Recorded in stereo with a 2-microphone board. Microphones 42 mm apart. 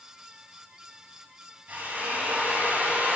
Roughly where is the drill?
Right.